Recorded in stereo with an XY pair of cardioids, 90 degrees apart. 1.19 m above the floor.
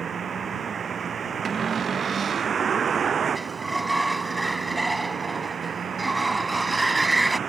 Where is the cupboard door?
45° right.